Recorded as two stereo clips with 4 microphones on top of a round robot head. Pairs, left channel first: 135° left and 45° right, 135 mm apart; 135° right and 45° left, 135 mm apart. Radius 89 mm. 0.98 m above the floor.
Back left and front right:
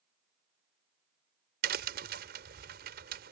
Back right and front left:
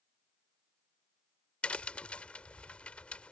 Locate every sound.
1.6 s a crack: 55° right